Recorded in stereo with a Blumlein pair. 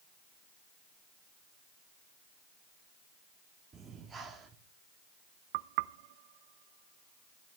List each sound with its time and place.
3.7 s breathing: 20° right, 1.9 m
5.5 s knocking: 50° right, 0.5 m